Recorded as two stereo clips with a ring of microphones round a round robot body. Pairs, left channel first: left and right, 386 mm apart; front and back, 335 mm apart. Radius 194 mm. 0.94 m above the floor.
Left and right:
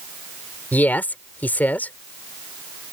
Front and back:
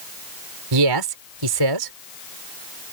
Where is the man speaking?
175° left.